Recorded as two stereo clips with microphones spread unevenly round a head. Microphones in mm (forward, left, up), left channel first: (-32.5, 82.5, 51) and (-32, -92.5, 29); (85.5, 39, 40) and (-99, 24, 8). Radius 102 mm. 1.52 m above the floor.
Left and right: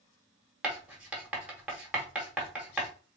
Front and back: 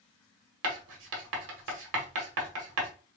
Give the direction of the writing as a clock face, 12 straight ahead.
6 o'clock.